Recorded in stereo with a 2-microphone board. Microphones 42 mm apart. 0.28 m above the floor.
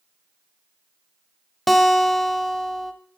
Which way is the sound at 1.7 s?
Centre (ahead or behind).